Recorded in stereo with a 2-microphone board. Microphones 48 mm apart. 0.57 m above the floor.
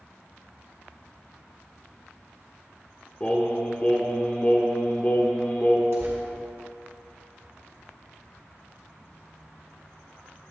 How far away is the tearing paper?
About 3.5 m.